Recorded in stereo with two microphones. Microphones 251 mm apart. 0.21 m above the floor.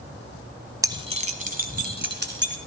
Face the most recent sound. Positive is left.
turn(degrees=-45)  # may be behind; listen again after turning